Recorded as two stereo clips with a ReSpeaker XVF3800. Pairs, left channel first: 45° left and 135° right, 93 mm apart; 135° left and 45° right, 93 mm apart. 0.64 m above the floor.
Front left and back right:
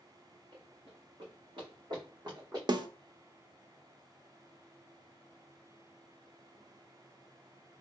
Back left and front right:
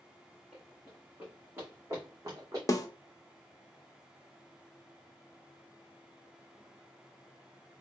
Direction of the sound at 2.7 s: 175° right.